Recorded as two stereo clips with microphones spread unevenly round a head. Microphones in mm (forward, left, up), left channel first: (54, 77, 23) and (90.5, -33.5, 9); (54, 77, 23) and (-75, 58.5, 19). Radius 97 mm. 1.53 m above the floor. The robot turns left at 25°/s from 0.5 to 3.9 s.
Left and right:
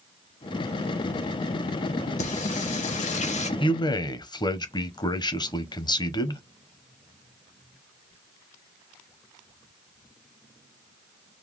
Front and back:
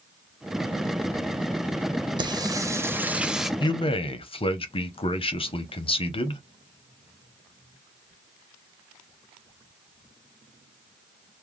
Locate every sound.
2.2 s singing: 130° left, 0.7 m; by 3.5 s 100° left, 0.7 m
3.6 s a man speaking: 65° left, 0.9 m; by 6.4 s 55° left, 0.9 m